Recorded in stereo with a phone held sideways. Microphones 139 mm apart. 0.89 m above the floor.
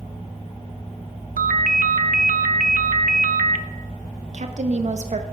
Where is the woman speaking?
55° right (ahead or behind), 0.7 m.